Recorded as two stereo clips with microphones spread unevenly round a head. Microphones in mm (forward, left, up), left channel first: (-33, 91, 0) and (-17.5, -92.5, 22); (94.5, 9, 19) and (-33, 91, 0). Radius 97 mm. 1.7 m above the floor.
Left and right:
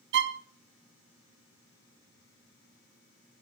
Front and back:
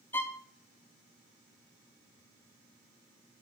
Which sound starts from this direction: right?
A violin, at 0.1 s.